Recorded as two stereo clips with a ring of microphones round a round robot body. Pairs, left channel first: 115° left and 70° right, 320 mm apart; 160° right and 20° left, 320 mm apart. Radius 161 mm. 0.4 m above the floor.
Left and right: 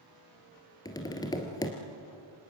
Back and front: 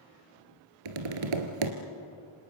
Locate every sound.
0.8 s tapping: 35° left, 2 m